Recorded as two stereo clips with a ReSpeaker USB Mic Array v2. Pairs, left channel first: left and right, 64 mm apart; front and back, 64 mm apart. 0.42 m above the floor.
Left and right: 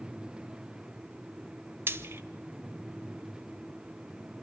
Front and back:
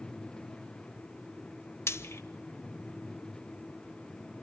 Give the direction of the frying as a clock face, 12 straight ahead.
1 o'clock.